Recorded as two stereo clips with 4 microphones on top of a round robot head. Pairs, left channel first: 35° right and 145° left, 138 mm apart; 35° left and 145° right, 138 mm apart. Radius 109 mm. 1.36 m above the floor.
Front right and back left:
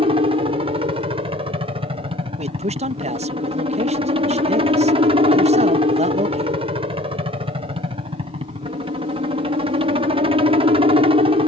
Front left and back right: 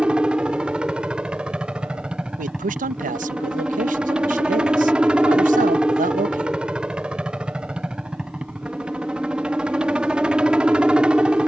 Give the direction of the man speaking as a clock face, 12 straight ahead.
6 o'clock.